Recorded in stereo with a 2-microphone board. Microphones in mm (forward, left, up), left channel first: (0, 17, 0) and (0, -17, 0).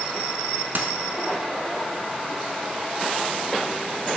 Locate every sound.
0.8 s a dropped coin: 65° right (ahead or behind), 0.6 m